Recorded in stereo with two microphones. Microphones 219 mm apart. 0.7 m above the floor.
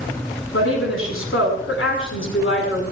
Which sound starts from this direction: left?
A woman speaking, at 0.5 s.